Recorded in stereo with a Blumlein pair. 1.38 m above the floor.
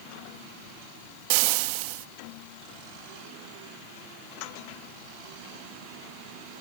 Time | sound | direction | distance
1.3 | frying | 45° right | ?